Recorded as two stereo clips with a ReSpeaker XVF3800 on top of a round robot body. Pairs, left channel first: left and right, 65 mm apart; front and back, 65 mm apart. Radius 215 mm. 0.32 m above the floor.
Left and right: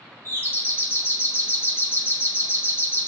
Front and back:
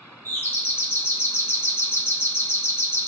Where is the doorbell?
45° left, 3 m.